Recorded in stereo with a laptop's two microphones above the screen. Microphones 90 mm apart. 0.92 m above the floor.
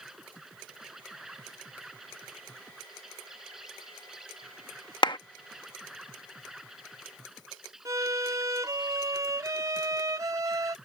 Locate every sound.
0.0 s an insect: 5° right (ahead or behind)
5.0 s a clap: 60° left (ahead or behind)
7.8 s a violin: 40° right (ahead or behind)